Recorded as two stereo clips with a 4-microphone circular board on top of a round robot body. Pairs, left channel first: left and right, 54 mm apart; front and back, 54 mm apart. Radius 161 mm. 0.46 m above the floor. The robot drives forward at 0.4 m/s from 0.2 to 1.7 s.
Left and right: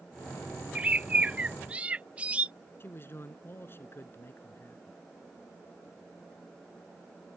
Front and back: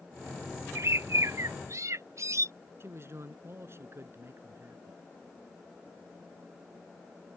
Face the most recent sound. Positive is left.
turn(degrees=140)